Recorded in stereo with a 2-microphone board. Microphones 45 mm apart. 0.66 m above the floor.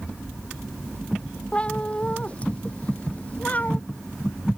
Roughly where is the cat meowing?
Left.